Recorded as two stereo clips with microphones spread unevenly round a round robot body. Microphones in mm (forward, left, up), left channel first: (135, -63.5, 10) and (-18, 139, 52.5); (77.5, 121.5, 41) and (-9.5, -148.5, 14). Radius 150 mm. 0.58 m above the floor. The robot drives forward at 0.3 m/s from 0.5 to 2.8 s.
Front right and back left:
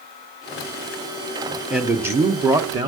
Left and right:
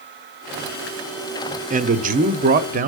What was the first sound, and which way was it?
A man speaking, 135° right.